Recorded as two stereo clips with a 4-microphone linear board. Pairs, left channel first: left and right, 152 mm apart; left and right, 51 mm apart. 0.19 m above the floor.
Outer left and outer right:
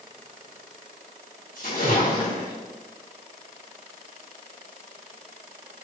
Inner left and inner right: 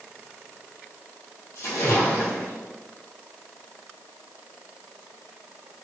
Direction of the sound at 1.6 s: 75° left (ahead or behind).